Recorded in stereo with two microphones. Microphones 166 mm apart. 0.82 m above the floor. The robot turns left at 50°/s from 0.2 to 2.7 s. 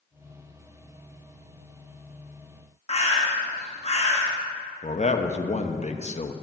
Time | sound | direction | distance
2.9 | a bird | 35° left (ahead or behind) | 1.3 m
4.8 | a man speaking | 40° left (ahead or behind) | 0.7 m